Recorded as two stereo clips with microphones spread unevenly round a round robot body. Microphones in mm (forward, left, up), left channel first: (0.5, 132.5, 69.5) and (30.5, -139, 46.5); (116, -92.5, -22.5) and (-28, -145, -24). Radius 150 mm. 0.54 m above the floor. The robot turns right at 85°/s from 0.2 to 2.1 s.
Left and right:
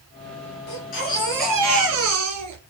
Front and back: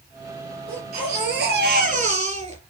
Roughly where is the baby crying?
Behind left.